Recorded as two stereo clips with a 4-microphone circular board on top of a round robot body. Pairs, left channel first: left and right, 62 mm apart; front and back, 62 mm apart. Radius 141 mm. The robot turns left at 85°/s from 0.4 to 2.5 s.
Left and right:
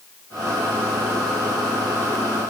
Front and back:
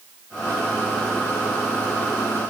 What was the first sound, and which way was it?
Only background noise.